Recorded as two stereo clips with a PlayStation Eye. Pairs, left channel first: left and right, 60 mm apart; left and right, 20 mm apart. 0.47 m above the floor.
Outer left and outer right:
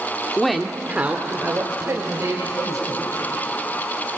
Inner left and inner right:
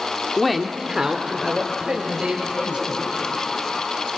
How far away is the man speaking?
About 1.0 m.